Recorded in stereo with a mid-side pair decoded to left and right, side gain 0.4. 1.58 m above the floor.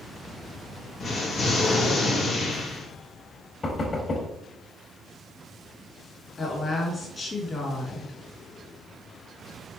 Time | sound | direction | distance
1.0 | an explosion | 65° left | 2.5 m
3.6 | knocking | 45° left | 3.5 m
6.4 | a woman speaking | 40° left | 4 m